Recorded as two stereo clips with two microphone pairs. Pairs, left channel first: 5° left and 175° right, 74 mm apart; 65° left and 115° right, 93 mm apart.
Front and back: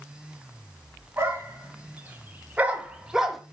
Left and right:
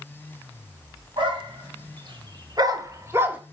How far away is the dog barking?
About 2.5 m.